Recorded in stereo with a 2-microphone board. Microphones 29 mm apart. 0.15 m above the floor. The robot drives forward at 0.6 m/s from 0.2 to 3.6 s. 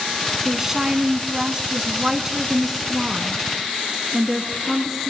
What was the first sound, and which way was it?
A woman speaking, 15° right (ahead or behind).